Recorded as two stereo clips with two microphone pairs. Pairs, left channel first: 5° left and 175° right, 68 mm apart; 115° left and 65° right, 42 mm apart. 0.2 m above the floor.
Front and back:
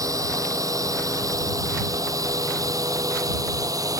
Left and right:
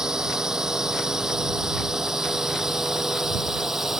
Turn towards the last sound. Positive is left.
turn(degrees=-145)